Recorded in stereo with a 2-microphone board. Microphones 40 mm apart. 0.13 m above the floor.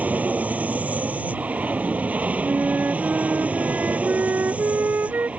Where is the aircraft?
40° right (ahead or behind); by 5.4 s 35° right (ahead or behind).